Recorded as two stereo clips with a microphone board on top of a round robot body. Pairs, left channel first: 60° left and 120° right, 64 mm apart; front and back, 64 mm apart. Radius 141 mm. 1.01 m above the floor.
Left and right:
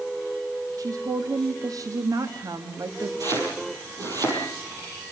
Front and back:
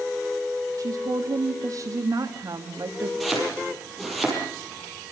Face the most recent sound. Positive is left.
turn(degrees=-90)